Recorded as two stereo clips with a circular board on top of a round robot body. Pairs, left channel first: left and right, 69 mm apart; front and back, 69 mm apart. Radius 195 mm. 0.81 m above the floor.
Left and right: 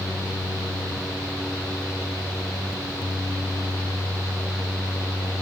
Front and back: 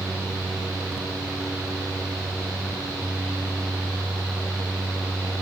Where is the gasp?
No gasp in this recording.